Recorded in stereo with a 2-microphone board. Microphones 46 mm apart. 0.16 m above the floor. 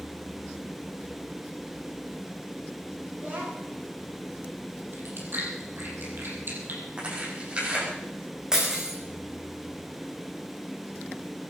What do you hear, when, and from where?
3.1 s a child speaking: 35° right (ahead or behind), 7.5 m
4.9 s chewing: 50° right (ahead or behind), 4.5 m
7.0 s tearing paper: 25° right (ahead or behind), 8 m
8.5 s breaking glass: 15° right (ahead or behind), 5 m